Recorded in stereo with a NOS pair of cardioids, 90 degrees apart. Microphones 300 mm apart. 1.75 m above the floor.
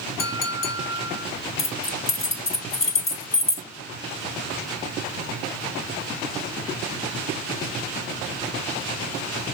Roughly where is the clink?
Ahead left.